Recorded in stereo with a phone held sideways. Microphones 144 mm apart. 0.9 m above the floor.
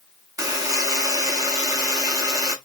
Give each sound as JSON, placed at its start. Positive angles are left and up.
{"t": 0.4, "sound": "a buzzer", "side_deg": -25, "distance_m": 1.0}